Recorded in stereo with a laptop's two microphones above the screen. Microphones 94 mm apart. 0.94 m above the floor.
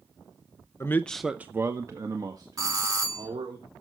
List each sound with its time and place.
0.8 s a man speaking: 30° left (ahead or behind), 0.7 m; by 3.6 s 50° right (ahead or behind), 3 m
2.6 s a doorbell: 40° right (ahead or behind), 2.5 m